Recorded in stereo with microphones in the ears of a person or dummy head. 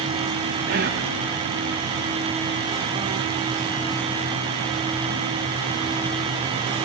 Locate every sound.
0.7 s whispering: 50° right (ahead or behind), 1.6 m